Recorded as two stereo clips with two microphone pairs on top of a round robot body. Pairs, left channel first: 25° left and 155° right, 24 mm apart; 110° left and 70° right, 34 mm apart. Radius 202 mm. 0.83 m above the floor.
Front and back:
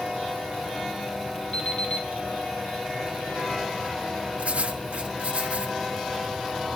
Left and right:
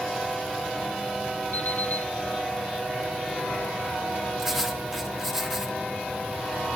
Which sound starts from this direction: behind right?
Writing, at 4.4 s.